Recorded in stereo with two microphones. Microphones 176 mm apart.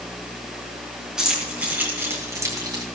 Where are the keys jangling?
5° right (ahead or behind), 4.5 m; by 2.8 s 25° right (ahead or behind), 3.5 m.